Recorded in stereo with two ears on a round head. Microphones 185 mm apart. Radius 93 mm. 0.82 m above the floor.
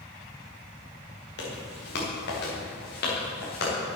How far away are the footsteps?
About 7 m.